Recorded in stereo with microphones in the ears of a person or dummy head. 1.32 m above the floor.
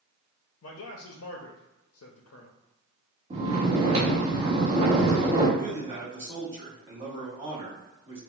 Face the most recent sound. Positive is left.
turn(degrees=-20)  # may be behind; listen again after turning